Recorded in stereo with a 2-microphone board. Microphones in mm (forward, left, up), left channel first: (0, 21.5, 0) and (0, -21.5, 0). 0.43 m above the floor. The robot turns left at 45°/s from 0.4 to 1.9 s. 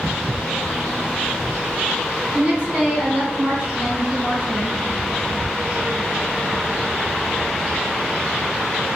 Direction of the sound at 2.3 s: 35° right (ahead or behind).